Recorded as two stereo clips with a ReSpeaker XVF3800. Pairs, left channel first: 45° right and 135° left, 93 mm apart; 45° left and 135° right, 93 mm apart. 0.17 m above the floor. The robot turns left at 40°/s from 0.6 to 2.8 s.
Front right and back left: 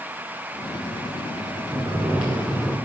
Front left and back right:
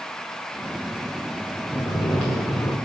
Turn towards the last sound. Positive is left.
turn(degrees=35)